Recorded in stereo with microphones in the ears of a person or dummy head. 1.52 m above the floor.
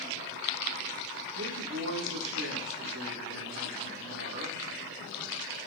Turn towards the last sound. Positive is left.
turn(degrees=-70)  # may be behind; listen again after turning